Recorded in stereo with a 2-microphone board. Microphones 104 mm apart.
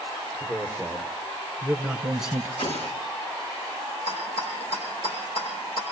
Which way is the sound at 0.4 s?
25° left (ahead or behind).